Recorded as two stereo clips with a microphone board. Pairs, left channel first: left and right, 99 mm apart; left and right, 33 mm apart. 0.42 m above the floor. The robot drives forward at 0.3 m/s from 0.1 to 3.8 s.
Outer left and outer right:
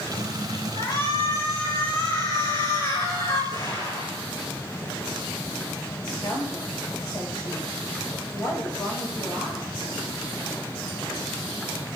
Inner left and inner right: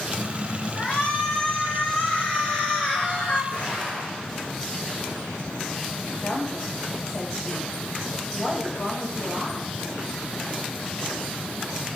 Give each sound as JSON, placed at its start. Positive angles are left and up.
{"t": 0.8, "sound": "a shout", "side_deg": 55, "distance_m": 4.0}
{"t": 3.5, "sound": "an explosion", "side_deg": 50, "distance_m": 5.0}
{"t": 6.2, "sound": "a woman speaking", "side_deg": 45, "distance_m": 2.5}